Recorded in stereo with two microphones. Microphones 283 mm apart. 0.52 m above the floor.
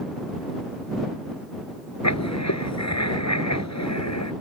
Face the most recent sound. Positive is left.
turn(degrees=85)